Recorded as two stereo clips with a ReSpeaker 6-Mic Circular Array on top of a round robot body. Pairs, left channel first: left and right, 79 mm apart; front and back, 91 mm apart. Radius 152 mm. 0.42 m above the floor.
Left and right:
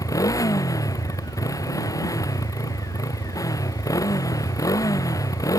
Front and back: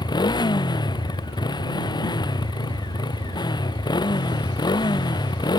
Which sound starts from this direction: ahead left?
A motorcycle, at 0.0 s.